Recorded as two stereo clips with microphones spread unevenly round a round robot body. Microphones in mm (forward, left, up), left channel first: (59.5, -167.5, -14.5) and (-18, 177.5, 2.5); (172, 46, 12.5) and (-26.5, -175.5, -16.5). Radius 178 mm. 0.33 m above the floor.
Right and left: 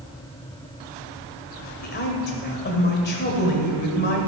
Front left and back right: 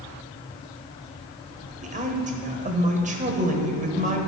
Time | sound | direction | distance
1.8 | a woman speaking | 105° right | 1.2 m